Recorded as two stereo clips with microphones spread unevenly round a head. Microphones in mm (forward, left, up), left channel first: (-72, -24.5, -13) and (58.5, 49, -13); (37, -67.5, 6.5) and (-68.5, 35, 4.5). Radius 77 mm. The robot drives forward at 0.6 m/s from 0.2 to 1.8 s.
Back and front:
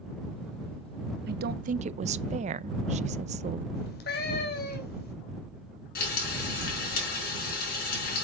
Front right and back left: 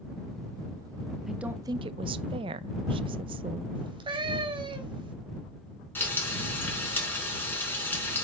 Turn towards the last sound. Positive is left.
turn(degrees=-120)